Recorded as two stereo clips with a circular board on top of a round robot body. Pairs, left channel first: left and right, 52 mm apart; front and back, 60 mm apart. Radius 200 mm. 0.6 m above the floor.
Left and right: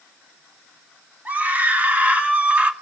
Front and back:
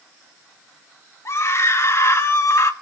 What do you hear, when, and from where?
1.2 s a scream: 35° right, 3 m; by 2.7 s 30° right, 2 m